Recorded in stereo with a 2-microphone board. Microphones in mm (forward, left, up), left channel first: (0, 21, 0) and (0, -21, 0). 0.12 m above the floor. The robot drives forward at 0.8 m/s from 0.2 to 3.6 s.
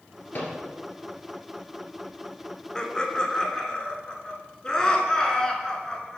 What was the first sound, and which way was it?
A microwave, 50° left (ahead or behind).